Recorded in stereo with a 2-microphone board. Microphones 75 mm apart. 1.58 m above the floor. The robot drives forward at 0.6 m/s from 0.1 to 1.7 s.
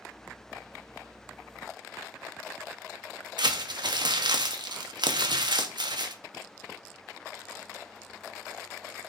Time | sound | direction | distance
3.4 | crumpling | 75° right (ahead or behind) | 0.7 m